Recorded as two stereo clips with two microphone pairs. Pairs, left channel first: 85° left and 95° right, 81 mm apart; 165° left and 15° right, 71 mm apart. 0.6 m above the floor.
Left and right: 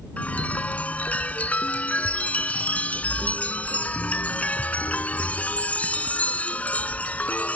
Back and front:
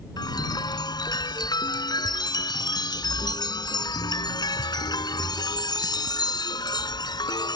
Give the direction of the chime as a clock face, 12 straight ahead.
7 o'clock.